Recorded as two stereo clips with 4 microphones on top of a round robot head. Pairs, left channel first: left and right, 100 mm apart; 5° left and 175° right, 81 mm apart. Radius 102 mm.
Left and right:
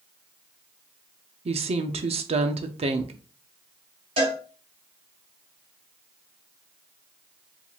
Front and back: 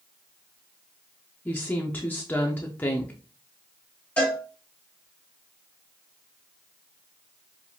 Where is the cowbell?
70° right, 3 m.